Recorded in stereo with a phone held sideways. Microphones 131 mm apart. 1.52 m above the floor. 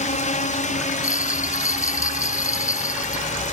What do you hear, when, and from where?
0.0 s a drone: 65° left (ahead or behind)
1.0 s a bell: 25° left (ahead or behind)